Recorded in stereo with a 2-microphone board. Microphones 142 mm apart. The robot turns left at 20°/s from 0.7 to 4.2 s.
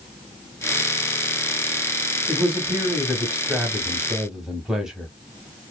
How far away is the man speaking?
About 1.0 m.